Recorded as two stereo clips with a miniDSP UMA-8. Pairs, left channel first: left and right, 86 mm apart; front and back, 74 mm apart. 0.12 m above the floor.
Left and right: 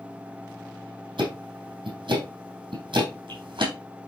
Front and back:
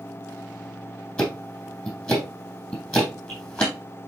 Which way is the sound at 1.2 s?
70° right.